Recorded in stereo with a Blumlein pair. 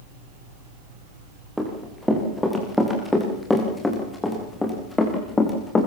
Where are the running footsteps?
Straight ahead, 8 m; by 5.9 s 15° left, 6 m.